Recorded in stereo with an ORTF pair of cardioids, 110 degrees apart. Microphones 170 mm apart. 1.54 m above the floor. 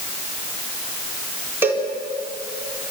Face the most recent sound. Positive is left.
turn(degrees=-10)